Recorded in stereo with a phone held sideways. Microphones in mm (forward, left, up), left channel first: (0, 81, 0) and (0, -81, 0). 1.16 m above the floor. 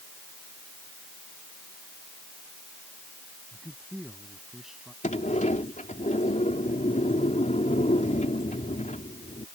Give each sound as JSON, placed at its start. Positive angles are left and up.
{"t": 3.5, "sound": "a man speaking", "side_deg": 0}
{"t": 5.0, "sound": "a sliding door", "side_deg": 45}